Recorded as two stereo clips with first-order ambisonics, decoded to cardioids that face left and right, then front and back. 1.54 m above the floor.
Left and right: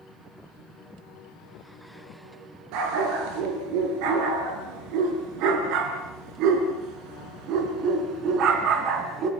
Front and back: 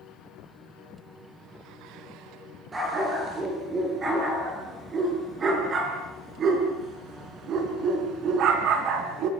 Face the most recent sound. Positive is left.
turn(degrees=-145)